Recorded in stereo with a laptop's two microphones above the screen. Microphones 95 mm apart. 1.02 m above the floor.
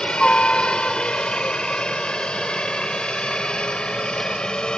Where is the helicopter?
10° left (ahead or behind).